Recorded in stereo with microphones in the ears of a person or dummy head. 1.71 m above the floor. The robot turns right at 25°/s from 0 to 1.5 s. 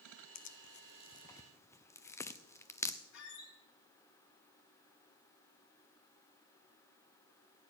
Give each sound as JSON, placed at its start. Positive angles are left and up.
{"t": 0.3, "sound": "tearing paper", "side_deg": 40, "distance_m": 0.5}
{"t": 3.1, "sound": "a squeak", "side_deg": 60, "distance_m": 2.5}